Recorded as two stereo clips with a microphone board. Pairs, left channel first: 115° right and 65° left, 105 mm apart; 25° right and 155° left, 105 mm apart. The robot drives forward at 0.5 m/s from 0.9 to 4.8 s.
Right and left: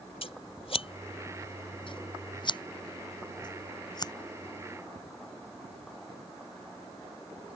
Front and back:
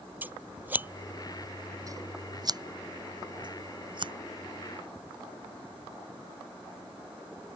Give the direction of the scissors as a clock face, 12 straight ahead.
4 o'clock.